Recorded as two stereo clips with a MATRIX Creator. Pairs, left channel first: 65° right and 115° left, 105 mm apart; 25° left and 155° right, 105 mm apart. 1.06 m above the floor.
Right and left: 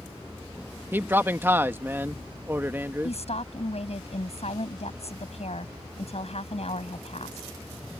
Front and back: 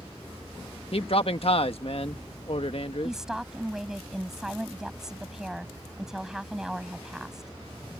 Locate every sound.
0.9 s a man speaking: 45° left
3.0 s a woman speaking: 75° right